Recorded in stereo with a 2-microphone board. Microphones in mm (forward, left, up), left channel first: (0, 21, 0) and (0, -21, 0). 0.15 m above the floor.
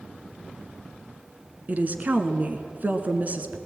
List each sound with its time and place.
1.7 s a woman speaking: 40° right (ahead or behind), 1.5 m